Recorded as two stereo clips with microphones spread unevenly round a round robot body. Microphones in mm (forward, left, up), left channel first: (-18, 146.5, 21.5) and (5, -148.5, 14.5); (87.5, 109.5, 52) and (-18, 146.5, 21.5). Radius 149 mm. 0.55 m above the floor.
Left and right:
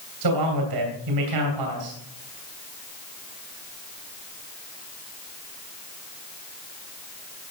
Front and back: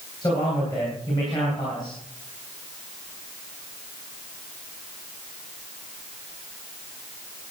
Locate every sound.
0.2 s a man speaking: 95° right, 3 m